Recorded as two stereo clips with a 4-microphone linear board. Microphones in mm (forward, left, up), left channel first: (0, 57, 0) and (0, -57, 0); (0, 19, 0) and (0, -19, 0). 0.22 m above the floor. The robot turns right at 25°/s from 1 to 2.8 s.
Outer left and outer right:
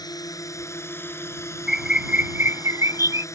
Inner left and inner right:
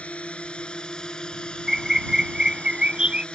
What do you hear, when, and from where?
0.0 s a drone: 30° left (ahead or behind); by 3.4 s 25° left (ahead or behind)
1.7 s a bird: 5° right (ahead or behind); by 3.2 s 25° right (ahead or behind)